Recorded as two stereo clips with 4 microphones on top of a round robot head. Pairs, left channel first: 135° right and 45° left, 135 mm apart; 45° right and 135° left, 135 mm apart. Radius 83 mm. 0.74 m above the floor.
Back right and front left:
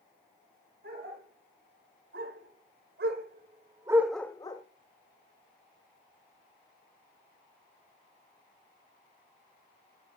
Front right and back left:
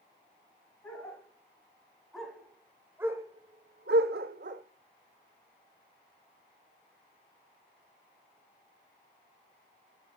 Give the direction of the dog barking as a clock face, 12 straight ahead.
11 o'clock.